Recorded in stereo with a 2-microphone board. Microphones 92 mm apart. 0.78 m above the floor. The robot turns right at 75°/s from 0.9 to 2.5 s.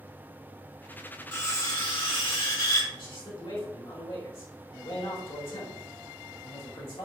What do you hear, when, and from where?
1.3 s cutlery clinking: 20° left, 1.7 m; by 2.8 s 110° left, 1.7 m
2.9 s a man speaking: 70° left (ahead or behind), 1.9 m